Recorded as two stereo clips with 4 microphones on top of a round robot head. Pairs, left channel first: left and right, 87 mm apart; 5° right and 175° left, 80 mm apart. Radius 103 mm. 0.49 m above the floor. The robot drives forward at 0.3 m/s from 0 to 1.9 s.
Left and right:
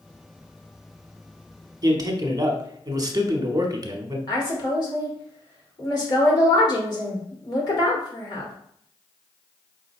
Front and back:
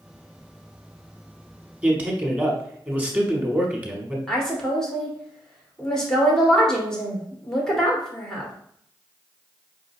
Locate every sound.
1.8 s a man speaking: 115° right, 1.1 m; by 4.2 s 120° right, 1.1 m
4.3 s a woman speaking: 75° left, 2 m